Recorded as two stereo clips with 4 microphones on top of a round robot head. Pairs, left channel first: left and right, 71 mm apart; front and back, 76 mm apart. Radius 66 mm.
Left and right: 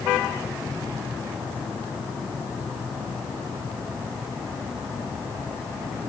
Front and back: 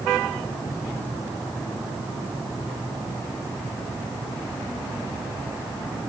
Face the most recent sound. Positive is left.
No sound to turn to.